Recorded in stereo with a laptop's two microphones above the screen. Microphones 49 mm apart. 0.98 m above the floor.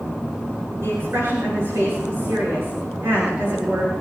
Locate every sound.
0.8 s a woman speaking: 60° right (ahead or behind), 8 m